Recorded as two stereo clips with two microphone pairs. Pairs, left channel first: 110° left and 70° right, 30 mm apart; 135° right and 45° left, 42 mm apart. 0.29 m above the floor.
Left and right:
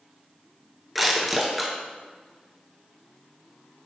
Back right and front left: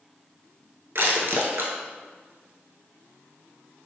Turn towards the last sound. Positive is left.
turn(degrees=15)